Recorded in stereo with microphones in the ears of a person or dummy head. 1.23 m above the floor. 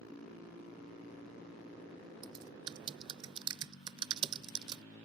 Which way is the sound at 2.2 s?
30° right (ahead or behind).